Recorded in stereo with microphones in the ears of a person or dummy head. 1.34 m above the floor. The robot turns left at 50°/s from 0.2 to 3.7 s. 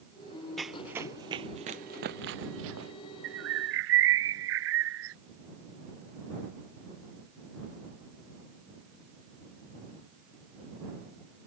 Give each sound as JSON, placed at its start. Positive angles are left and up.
{"t": 0.6, "sound": "running footsteps", "side_deg": 0}
{"t": 3.2, "sound": "a bird", "side_deg": -70}